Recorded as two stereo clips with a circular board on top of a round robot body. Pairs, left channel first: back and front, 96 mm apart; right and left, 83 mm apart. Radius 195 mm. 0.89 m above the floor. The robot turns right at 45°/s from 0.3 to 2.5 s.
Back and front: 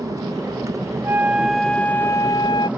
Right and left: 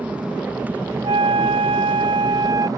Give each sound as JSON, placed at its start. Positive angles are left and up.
{"t": 0.0, "sound": "an aircraft", "azimuth_deg": 25}
{"t": 1.0, "sound": "a flute", "azimuth_deg": 65}